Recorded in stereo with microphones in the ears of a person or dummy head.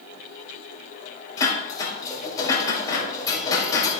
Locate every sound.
1.4 s dishes clattering: 20° left (ahead or behind), 5 m